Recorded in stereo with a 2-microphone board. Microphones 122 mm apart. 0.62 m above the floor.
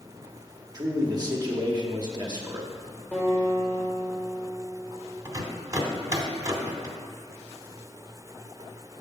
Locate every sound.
0.7 s a man speaking: 35° right (ahead or behind), 0.9 m
3.1 s a guitar: 10° left (ahead or behind), 2.5 m
5.2 s a rattle: 30° right (ahead or behind), 0.9 m